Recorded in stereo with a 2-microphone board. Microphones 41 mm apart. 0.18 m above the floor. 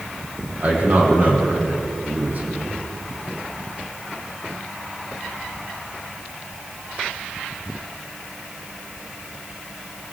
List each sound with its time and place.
0.6 s a man speaking: 45° right (ahead or behind), 8 m